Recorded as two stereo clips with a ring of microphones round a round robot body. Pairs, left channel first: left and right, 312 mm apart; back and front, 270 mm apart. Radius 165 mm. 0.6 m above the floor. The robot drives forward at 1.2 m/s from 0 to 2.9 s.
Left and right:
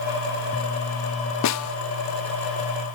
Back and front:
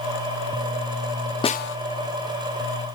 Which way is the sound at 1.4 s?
110° left.